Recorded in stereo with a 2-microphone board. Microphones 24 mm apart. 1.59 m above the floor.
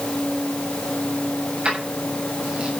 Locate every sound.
1.6 s keys jangling: 55° right (ahead or behind), 8 m